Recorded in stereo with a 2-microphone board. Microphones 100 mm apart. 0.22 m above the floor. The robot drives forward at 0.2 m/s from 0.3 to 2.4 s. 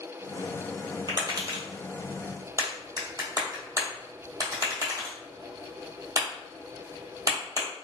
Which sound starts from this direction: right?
Tapping, at 1.1 s.